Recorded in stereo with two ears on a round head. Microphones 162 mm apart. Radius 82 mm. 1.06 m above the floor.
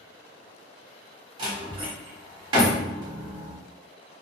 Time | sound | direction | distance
1.4 | a door slam | 25° right (ahead or behind) | 1.2 m